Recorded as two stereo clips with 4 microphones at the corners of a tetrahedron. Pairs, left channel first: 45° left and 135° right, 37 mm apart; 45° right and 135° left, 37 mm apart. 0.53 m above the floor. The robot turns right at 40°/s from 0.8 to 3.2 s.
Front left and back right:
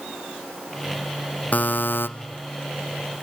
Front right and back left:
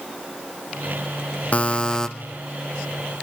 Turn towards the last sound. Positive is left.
turn(degrees=75)